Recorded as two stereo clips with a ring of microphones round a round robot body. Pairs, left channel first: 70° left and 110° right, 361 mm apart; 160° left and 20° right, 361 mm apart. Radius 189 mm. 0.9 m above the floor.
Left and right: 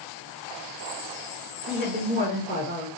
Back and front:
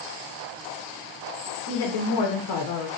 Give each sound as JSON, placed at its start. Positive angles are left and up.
{"t": 1.7, "sound": "a woman speaking", "azimuth_deg": 180, "distance_m": 0.8}